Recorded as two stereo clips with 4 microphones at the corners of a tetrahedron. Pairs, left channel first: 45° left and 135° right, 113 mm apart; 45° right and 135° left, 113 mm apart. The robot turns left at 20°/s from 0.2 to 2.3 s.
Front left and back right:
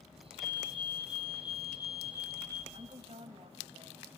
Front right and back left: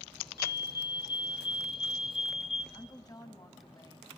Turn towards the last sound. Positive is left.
turn(degrees=-100)